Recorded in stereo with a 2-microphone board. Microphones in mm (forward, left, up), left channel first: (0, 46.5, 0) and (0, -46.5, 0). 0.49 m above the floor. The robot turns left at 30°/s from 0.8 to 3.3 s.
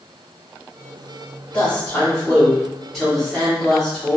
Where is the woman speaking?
15° left (ahead or behind), 1.3 m; by 4.2 s centre (ahead or behind), 1.3 m.